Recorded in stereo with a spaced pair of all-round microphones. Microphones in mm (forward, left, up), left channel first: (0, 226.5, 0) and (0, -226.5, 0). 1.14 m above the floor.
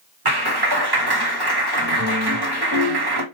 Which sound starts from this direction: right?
A clap, at 0.2 s.